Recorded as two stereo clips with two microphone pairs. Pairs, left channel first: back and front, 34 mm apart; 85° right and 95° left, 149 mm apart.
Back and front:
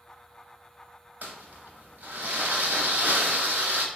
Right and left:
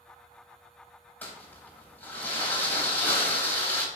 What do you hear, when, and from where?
1.2 s crumpling: 5° right, 0.9 m